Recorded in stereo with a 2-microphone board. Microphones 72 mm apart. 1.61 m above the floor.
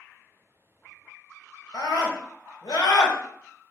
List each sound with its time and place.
1.7 s a scream: 70° left (ahead or behind), 1.1 m